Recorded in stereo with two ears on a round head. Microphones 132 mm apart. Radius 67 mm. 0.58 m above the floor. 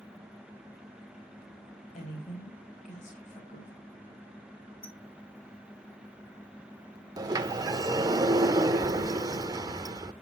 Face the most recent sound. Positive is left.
turn(degrees=-25)  # may be behind; listen again after turning